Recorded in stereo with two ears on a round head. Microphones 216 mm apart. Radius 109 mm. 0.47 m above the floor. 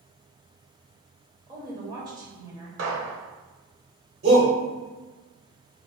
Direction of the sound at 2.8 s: 65° right (ahead or behind).